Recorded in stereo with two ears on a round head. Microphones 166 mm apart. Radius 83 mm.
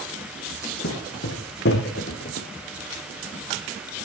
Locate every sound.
0.8 s footsteps: 65° left (ahead or behind), 3.5 m; by 2.5 s 50° left (ahead or behind), 1.6 m